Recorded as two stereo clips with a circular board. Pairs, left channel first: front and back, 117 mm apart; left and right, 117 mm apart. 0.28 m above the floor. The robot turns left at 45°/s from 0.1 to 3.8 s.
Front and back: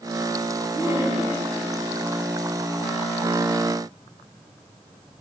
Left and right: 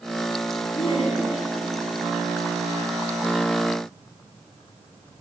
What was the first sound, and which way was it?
Laughter, 125° left.